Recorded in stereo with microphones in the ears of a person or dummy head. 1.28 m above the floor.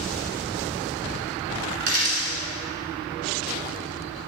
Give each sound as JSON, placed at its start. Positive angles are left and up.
{"t": 1.8, "sound": "a dropped coin", "side_deg": -55, "distance_m": 1.9}